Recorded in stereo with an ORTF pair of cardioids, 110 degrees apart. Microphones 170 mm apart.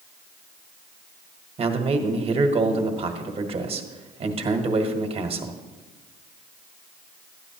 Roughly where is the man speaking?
Ahead right.